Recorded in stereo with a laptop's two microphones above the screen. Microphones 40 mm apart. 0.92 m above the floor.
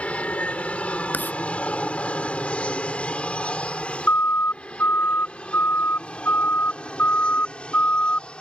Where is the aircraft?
30° left (ahead or behind); by 8.4 s 25° left (ahead or behind).